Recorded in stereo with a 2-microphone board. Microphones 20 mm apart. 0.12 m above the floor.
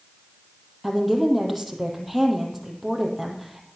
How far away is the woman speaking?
About 4 m.